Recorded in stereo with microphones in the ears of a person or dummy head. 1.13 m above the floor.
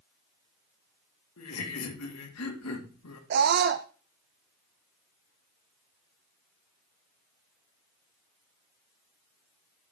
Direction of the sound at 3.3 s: 55° right (ahead or behind).